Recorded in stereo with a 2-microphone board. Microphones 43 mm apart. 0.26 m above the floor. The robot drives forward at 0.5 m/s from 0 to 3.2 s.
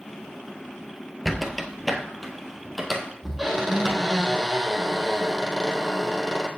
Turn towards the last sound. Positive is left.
turn(degrees=0)  # may be behind; listen again after turning